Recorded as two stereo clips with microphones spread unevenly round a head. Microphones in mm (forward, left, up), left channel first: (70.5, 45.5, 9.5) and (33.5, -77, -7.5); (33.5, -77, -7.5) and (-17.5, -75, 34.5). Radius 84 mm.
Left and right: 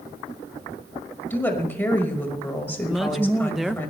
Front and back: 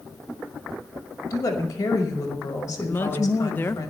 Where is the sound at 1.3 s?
Straight ahead, 5 m.